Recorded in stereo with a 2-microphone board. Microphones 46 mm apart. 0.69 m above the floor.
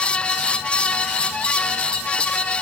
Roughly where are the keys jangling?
I don't hear keys jangling.